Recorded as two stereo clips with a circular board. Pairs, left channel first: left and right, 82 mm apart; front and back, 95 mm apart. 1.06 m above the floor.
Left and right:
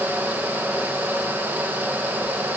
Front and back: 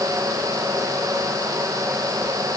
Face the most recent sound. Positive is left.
No sound to turn to.